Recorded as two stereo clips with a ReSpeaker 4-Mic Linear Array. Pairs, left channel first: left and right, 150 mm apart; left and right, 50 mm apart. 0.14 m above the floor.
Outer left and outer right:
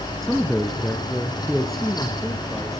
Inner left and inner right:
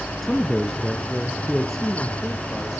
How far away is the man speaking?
About 1.1 m.